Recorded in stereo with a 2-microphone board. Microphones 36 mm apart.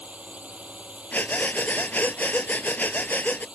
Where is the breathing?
50° left (ahead or behind).